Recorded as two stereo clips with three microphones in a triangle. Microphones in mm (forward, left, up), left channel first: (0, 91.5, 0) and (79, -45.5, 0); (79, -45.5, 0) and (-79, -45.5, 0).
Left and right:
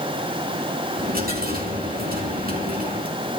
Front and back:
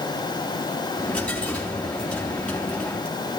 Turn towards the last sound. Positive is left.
turn(degrees=-85)